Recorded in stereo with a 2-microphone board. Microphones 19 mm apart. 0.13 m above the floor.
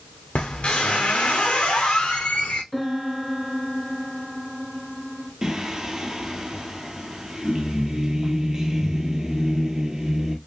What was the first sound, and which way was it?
A squeak, 75° left (ahead or behind).